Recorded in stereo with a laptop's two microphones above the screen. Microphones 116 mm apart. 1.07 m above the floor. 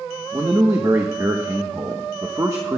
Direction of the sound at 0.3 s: 30° right (ahead or behind).